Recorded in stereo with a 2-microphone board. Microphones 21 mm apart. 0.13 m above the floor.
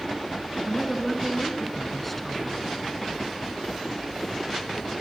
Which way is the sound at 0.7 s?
5° left (ahead or behind).